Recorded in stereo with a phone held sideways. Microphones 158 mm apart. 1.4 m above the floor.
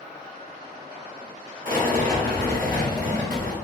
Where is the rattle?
60° right (ahead or behind), 1.3 m.